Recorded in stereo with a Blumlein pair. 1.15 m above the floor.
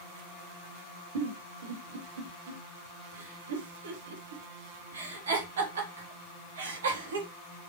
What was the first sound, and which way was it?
A giggle, 65° right.